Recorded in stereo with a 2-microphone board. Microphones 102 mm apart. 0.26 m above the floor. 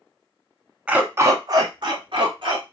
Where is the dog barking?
10° right (ahead or behind), 0.6 m; by 2.6 s 60° right (ahead or behind), 1.4 m.